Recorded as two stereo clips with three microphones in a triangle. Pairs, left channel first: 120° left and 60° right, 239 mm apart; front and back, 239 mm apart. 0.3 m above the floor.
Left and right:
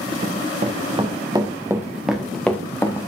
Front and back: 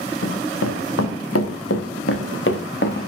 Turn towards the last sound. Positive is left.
turn(degrees=45)